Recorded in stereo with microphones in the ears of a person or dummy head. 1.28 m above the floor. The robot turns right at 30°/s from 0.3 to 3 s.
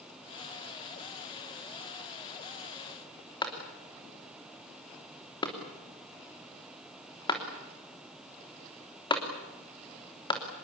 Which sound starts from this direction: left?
A clap, at 3.4 s.